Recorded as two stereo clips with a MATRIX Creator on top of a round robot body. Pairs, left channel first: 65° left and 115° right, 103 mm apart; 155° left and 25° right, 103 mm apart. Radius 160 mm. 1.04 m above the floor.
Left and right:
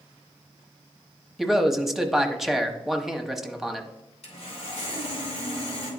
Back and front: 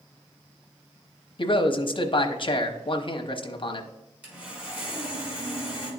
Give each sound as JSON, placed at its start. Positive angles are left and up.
{"t": 1.4, "sound": "a man speaking", "azimuth_deg": 160, "distance_m": 1.0}
{"t": 4.2, "sound": "sawing", "azimuth_deg": 55, "distance_m": 3.0}